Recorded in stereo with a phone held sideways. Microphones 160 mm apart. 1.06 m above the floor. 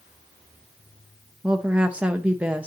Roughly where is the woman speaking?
Centre.